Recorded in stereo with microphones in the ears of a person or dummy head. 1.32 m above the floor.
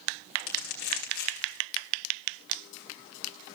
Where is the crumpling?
55° left (ahead or behind), 2.5 m.